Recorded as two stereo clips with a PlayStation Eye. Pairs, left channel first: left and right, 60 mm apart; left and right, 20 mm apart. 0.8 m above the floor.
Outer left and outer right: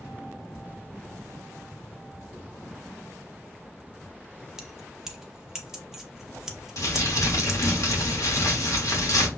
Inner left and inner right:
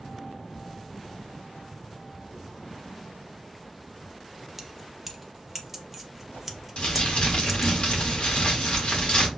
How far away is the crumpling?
About 1.3 m.